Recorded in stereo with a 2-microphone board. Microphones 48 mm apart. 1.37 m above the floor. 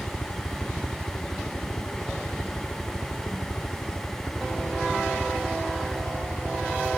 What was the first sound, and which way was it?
A helicopter, 45° left (ahead or behind).